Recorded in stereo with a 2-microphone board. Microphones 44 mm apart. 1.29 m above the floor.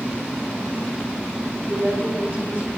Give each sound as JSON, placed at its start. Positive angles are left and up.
{"t": 1.7, "sound": "a woman speaking", "side_deg": -40, "distance_m": 4.5}